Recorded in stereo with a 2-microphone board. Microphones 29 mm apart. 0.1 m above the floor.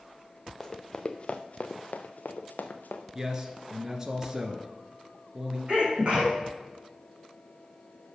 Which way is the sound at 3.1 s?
20° right (ahead or behind).